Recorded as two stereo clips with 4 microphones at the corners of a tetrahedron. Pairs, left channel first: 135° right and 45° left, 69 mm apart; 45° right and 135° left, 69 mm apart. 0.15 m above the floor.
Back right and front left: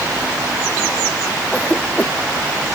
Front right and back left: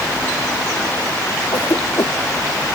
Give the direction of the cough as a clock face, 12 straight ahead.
2 o'clock.